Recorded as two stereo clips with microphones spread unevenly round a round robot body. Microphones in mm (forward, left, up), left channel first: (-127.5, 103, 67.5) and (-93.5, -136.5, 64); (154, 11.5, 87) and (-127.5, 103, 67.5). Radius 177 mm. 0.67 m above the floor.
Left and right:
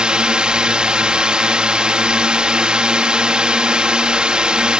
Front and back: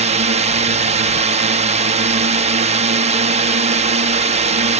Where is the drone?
165° right.